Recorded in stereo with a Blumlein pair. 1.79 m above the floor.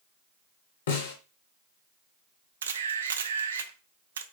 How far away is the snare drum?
About 1.4 m.